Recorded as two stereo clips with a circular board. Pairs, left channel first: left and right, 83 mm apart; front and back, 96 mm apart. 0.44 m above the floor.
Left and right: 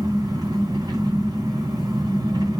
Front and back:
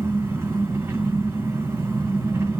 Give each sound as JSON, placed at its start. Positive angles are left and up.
{"t": 0.0, "sound": "an engine running", "azimuth_deg": -120, "distance_m": 3.0}